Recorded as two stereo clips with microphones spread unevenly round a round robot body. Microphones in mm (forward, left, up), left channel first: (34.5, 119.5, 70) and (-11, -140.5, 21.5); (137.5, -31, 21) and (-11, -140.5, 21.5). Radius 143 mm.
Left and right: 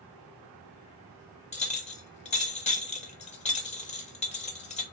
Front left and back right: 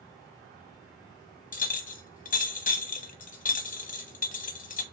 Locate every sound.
1.5 s a clink: 10° left, 0.7 m